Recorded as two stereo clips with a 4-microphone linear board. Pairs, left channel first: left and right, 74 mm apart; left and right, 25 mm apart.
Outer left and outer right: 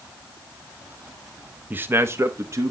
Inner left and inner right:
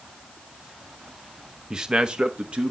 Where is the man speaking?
25° right (ahead or behind), 0.8 m; by 2.7 s 45° right (ahead or behind), 1.5 m.